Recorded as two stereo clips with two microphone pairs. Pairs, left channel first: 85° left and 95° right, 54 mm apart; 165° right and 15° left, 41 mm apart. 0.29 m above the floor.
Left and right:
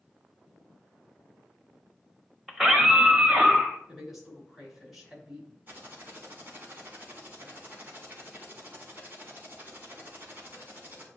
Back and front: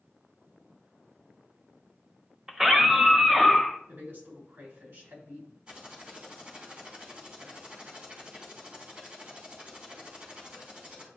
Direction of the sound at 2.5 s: 25° right.